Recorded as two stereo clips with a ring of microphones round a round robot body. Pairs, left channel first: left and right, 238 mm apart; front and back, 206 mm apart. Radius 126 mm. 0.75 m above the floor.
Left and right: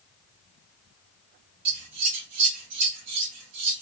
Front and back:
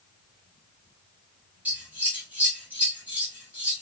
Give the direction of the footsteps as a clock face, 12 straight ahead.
No footsteps in this recording.